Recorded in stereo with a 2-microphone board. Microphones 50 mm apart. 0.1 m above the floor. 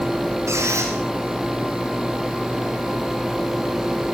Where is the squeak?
85° right, 9 m.